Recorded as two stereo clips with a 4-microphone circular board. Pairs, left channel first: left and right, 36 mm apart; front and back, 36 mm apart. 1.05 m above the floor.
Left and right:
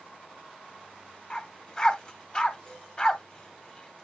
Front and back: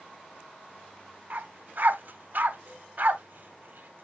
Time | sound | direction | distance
1.3 | a dog barking | 150° left | 1.1 m